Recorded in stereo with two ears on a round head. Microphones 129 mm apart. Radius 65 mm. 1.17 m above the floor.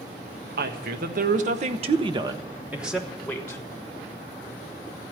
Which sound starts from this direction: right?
A woman speaking, at 0.6 s.